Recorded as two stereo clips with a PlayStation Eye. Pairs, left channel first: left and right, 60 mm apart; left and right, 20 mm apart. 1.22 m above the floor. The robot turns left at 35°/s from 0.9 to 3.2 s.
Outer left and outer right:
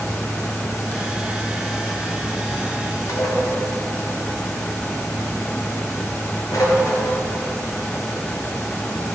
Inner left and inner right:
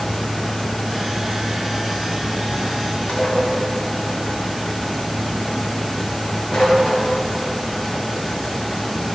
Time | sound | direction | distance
3.1 | dishes clattering | 70° left (ahead or behind) | 3 m